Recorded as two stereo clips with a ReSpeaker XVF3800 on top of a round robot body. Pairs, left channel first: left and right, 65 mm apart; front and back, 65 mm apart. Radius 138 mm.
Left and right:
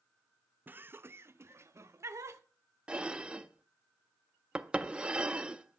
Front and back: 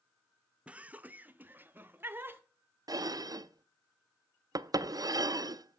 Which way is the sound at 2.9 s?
165° right.